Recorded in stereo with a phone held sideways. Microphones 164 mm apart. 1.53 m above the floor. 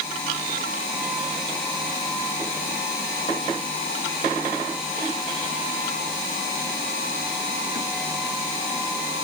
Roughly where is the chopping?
No chopping in this recording.